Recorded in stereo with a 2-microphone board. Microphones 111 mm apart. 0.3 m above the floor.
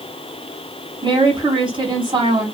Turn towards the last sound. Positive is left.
turn(degrees=-45)  # may be behind; listen again after turning